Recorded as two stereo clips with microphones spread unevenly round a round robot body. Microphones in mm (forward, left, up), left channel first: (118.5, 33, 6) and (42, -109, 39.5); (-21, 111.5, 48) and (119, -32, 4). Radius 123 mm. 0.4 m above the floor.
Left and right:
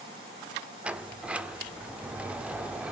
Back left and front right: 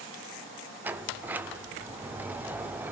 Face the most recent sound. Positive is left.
turn(degrees=-20)